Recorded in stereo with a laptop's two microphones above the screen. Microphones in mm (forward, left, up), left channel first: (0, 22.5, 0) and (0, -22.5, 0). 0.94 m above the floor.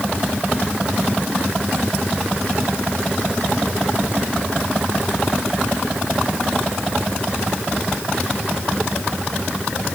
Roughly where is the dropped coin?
I don't hear a dropped coin.